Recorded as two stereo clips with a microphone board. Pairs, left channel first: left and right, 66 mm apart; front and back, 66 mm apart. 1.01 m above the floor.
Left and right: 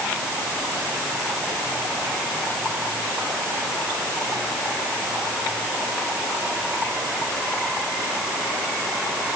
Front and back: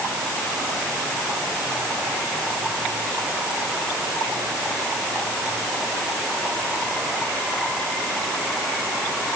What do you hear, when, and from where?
Only background noise.